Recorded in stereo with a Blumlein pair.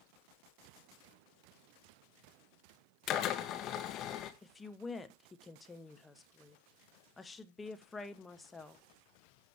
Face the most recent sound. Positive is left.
turn(degrees=10)